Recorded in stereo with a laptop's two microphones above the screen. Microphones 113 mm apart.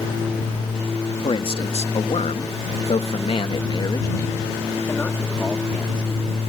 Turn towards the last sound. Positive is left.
turn(degrees=5)  # may be behind; listen again after turning